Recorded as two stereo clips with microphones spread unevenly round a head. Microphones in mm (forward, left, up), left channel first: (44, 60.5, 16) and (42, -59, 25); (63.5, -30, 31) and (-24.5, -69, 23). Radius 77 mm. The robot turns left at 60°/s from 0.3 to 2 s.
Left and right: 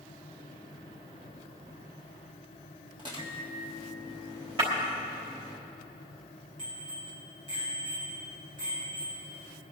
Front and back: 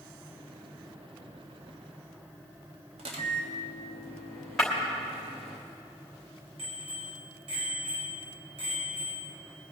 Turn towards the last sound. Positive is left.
turn(degrees=-145)